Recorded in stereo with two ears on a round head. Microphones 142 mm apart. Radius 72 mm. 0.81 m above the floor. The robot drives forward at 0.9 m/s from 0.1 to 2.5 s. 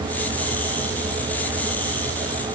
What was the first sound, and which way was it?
Only background noise.